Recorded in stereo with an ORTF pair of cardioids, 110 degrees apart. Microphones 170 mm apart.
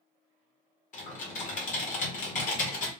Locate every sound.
0.9 s typing on a keyboard: 50° left, 1.7 m